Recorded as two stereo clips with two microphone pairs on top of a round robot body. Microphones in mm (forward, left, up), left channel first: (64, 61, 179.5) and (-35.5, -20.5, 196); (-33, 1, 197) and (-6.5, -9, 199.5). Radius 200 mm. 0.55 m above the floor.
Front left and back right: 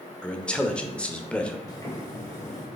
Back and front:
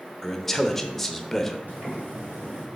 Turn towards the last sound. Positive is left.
turn(degrees=-25)